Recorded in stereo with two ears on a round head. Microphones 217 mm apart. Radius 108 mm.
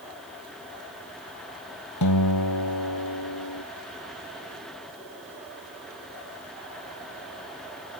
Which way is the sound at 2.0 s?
85° left.